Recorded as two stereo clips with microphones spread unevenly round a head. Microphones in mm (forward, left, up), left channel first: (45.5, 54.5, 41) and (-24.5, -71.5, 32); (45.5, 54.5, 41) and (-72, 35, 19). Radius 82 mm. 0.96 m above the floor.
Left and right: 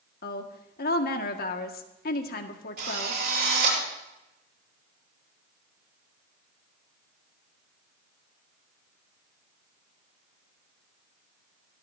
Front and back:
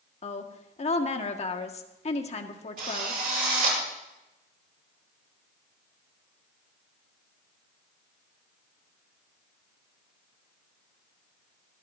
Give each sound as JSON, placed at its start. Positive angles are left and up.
{"t": 0.2, "sound": "a woman speaking", "azimuth_deg": 45, "distance_m": 1.7}
{"t": 2.8, "sound": "a drill", "azimuth_deg": -150, "distance_m": 8.0}